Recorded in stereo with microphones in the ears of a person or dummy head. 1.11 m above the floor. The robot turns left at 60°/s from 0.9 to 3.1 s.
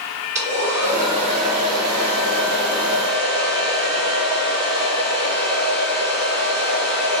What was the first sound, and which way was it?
A hair dryer, 15° right.